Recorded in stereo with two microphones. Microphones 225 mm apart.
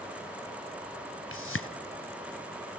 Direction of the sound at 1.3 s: 70° left (ahead or behind).